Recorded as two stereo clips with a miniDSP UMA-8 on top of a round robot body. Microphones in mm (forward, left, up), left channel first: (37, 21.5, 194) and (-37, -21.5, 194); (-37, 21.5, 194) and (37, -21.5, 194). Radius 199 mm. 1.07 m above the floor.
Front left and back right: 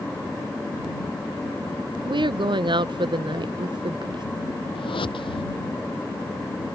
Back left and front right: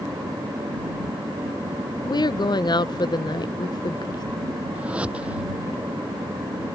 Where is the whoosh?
45° left.